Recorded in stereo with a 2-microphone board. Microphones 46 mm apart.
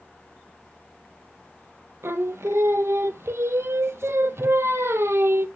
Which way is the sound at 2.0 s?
85° right.